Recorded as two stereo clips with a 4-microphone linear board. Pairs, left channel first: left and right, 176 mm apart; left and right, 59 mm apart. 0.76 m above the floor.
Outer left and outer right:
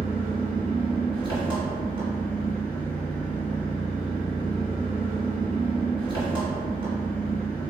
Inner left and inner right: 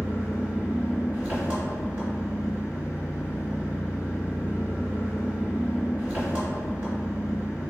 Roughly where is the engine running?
Right.